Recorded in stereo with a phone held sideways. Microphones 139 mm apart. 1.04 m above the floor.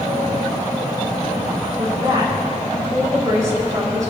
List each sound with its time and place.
1.8 s a woman speaking: 25° right (ahead or behind), 5.5 m